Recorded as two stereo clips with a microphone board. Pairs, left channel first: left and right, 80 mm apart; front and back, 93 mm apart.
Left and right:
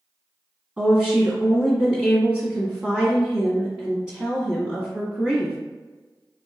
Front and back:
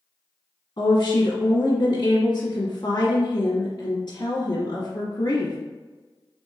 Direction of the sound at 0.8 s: 10° right.